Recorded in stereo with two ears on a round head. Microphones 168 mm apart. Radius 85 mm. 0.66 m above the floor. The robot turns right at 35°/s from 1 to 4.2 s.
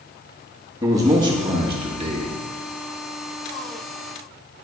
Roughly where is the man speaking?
Behind right.